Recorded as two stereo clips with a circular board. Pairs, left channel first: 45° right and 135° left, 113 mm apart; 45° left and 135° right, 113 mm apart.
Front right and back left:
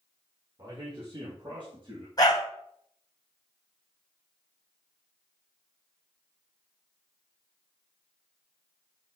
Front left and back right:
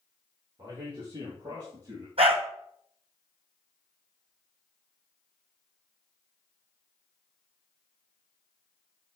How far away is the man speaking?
About 3.5 m.